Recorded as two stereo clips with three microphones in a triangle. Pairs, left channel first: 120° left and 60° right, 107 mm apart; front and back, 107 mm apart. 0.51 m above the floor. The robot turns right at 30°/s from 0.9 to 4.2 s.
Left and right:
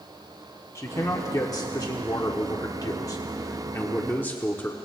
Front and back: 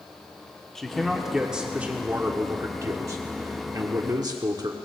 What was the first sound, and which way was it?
A man speaking, 85° left.